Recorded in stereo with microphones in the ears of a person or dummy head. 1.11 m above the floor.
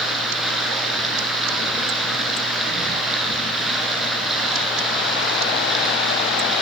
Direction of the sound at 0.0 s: Centre (ahead or behind).